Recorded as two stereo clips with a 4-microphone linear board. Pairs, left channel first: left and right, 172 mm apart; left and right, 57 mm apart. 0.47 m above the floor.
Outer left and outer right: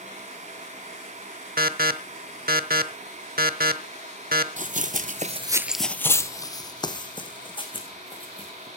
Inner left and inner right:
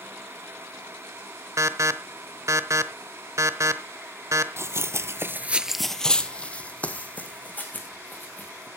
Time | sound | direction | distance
1.6 | an alarm | 65° right (ahead or behind) | 0.9 m
4.6 | running footsteps | 50° right (ahead or behind) | 1.1 m